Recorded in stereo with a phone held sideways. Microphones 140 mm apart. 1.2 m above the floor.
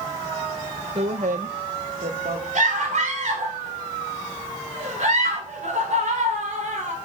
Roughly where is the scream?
Right.